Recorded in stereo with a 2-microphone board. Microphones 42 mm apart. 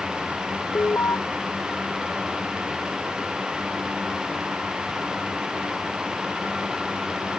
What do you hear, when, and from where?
0.8 s an alarm: 80° left